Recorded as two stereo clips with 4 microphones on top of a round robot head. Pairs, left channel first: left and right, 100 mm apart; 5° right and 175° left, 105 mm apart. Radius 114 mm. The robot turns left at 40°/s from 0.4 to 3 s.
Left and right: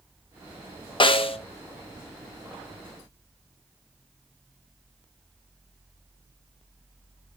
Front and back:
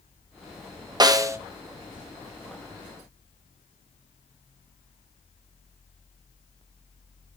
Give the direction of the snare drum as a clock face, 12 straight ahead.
8 o'clock.